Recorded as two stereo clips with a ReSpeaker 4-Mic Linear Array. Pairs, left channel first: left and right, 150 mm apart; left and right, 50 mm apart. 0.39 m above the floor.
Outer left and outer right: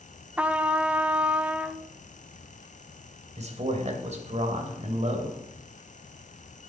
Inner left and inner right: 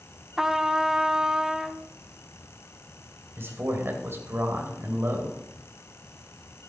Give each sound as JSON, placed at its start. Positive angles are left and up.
{"t": 0.4, "sound": "a trumpet", "side_deg": -10, "distance_m": 0.5}
{"t": 3.4, "sound": "a man speaking", "side_deg": -50, "distance_m": 2.0}